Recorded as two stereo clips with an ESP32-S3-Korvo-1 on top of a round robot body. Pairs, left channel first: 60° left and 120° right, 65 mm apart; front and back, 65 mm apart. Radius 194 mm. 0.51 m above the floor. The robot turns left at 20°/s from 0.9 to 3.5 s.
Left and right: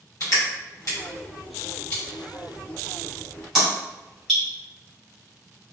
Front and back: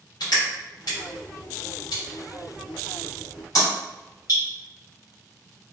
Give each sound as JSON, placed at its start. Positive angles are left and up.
{"t": 0.2, "sound": "crushing", "azimuth_deg": 15, "distance_m": 1.5}